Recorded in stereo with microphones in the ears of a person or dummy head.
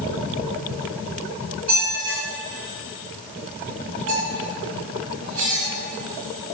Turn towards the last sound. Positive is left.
turn(degrees=-45)  # may be behind; listen again after turning